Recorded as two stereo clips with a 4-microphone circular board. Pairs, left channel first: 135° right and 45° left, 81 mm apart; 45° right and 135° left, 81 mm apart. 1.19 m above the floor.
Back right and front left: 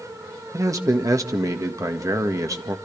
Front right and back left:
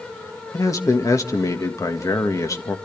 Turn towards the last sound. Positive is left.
turn(degrees=0)